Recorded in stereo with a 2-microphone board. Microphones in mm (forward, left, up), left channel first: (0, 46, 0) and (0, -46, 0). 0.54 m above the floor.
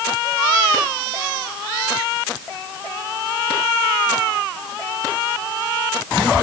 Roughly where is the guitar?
No guitar in this recording.